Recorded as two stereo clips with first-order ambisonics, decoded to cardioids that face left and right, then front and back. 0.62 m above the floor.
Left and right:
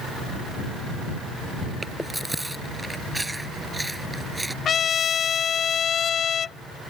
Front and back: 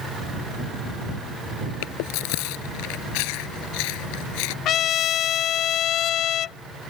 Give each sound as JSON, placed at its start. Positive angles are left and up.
{"t": 1.8, "sound": "chewing", "azimuth_deg": -5}
{"t": 4.7, "sound": "a trumpet", "azimuth_deg": 35}